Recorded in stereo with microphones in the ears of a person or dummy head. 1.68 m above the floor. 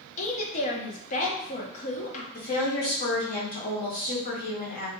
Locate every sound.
0.2 s a woman speaking: 40° left (ahead or behind), 0.8 m
2.3 s a woman speaking: 45° left (ahead or behind), 0.8 m